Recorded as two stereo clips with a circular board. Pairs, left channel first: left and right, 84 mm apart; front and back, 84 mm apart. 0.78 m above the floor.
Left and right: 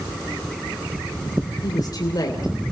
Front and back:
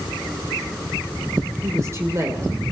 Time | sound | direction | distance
1.6 | a woman speaking | 125° left | 3 m